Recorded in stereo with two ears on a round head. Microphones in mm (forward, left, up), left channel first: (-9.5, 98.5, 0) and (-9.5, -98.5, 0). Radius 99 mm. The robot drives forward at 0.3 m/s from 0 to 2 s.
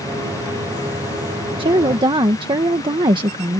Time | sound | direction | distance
1.6 | a woman speaking | 25° right (ahead or behind) | ?